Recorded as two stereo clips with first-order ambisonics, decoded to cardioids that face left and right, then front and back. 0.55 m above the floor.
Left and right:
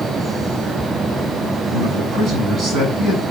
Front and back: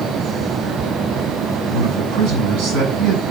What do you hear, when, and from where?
1.7 s a man speaking: straight behind, 6.5 m